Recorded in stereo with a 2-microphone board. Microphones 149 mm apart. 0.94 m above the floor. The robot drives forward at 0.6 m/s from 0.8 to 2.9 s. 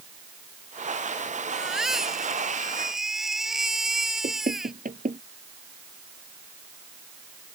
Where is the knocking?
65° right (ahead or behind).